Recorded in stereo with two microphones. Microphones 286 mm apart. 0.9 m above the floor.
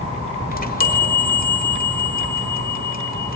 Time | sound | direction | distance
0.5 | a chime | 30° left (ahead or behind) | 1.4 m